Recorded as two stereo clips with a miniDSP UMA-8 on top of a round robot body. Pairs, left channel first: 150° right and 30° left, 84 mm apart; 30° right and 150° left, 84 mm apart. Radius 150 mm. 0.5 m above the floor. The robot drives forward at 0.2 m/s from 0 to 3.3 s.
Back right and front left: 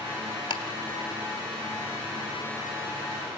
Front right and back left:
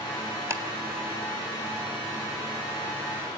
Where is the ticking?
155° right, 1.7 m.